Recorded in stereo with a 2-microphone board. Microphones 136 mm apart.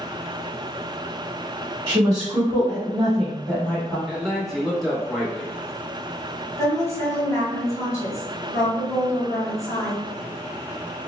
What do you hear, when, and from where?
1.9 s a woman speaking: 35° right (ahead or behind), 1.1 m; by 4.0 s 25° left (ahead or behind), 1.2 m
4.1 s a man speaking: centre (ahead or behind), 0.9 m
6.6 s a woman speaking: 25° left (ahead or behind), 1.4 m